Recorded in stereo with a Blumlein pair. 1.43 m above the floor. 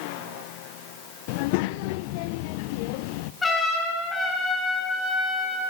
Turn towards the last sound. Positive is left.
turn(degrees=15)